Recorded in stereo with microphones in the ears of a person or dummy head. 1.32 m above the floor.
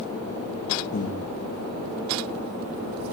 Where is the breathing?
45° left (ahead or behind), 0.8 m.